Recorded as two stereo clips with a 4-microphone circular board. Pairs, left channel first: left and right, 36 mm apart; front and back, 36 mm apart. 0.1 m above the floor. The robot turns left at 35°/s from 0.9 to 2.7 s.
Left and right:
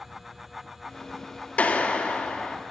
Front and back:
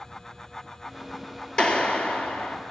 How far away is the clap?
About 2 m.